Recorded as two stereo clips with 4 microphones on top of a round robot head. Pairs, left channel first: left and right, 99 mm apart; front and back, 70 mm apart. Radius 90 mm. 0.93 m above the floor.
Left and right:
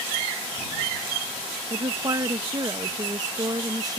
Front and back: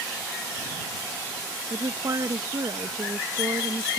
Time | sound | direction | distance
1.7 | a woman speaking | 140° right | ?